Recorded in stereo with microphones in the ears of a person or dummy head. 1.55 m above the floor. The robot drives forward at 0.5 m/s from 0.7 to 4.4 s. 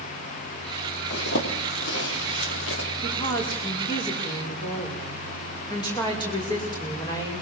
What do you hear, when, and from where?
1.1 s a zipper: 70° left (ahead or behind), 3.5 m; by 2.9 s 85° left, 3.5 m
3.0 s a woman speaking: 25° left (ahead or behind), 5.5 m